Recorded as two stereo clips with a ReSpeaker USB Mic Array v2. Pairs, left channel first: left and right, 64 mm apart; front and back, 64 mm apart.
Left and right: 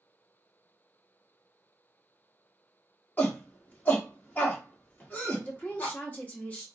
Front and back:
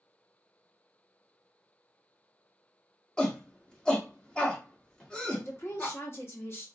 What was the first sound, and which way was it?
A shout, 65° left.